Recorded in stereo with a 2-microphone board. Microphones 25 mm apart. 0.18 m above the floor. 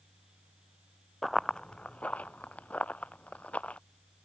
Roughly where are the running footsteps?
Centre.